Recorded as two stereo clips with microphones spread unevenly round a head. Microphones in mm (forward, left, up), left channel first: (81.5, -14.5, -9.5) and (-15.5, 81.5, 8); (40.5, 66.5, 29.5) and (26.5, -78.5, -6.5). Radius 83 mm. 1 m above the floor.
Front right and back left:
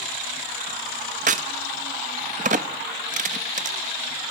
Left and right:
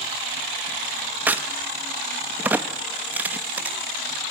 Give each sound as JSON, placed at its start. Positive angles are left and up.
{"t": 1.3, "sound": "a crack", "azimuth_deg": 180, "distance_m": 0.5}